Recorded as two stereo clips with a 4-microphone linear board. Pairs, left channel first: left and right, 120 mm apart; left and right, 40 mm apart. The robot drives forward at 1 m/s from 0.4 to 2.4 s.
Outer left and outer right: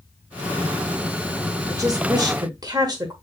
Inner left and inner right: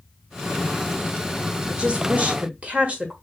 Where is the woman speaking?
30° right (ahead or behind), 1.3 m.